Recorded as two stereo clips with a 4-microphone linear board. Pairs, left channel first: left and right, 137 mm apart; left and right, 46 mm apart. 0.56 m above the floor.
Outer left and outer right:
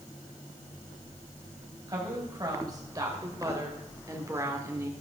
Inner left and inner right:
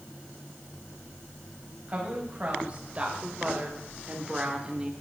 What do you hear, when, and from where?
1.9 s a woman speaking: 30° right (ahead or behind), 3 m; by 4.9 s 20° right (ahead or behind), 1.3 m